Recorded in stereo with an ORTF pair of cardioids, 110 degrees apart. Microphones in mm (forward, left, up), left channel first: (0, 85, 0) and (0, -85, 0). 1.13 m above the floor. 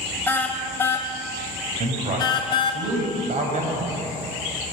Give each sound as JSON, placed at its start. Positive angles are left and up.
{"t": 0.3, "sound": "a car horn", "azimuth_deg": 10, "distance_m": 4.0}
{"t": 1.8, "sound": "a man speaking", "azimuth_deg": -45, "distance_m": 8.0}